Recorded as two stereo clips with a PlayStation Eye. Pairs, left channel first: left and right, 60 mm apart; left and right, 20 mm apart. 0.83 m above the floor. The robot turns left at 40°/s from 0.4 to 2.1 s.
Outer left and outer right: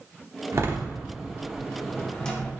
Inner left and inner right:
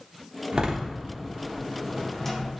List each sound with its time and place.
0.5 s a door slam: 45° right (ahead or behind), 1.4 m; by 2.5 s 15° left (ahead or behind), 1.4 m